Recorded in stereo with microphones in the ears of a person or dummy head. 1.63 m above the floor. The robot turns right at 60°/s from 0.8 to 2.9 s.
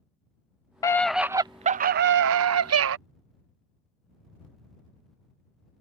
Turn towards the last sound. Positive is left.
turn(degrees=-70)